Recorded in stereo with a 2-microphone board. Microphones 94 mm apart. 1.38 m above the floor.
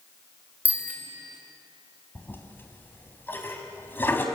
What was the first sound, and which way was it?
A bicycle bell, 15° right (ahead or behind).